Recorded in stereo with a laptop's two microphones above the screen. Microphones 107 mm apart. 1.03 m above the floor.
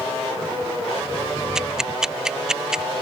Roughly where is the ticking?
Centre.